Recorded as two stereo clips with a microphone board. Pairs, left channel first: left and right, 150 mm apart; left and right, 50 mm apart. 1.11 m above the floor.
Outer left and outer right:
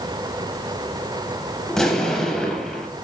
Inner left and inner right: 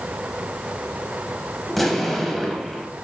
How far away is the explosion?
About 0.7 m.